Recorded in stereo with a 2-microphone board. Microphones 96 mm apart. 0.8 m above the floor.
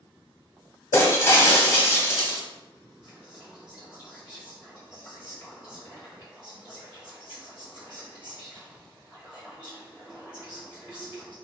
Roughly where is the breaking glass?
Left.